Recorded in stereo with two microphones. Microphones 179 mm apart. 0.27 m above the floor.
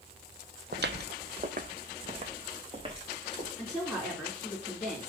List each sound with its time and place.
0.7 s footsteps: 70° right (ahead or behind), 0.7 m; by 3.5 s 30° right (ahead or behind), 3 m
3.6 s a woman speaking: 5° right (ahead or behind), 3 m